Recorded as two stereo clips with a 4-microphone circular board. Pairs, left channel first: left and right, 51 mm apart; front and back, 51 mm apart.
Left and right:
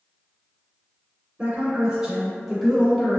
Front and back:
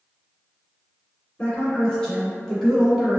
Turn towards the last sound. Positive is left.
turn(degrees=110)